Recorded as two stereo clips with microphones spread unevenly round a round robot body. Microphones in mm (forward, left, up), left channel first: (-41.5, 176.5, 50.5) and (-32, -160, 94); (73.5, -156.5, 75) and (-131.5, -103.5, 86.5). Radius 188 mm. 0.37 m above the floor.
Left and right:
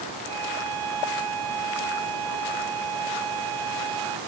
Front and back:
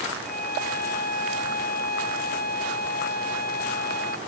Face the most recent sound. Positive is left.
turn(degrees=-60)